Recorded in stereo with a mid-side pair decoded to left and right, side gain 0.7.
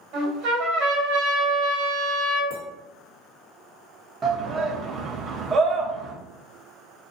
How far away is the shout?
About 0.7 m.